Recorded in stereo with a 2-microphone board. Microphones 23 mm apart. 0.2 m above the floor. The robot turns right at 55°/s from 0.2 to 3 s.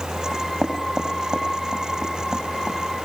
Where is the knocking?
20° right (ahead or behind), 7.5 m; by 2.8 s 25° right (ahead or behind), 7.5 m.